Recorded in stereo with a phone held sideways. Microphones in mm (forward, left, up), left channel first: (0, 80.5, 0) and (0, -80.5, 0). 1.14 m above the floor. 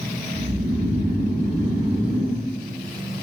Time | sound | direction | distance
0.3 | snoring | 40° right (ahead or behind) | 3 m